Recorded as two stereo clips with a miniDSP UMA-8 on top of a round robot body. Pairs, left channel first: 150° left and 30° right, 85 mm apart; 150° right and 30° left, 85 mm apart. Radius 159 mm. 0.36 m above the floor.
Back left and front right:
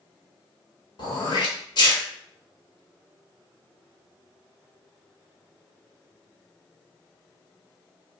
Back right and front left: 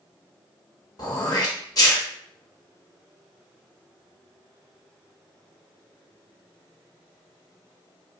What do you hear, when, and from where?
1.0 s throat clearing: 170° left, 1.2 m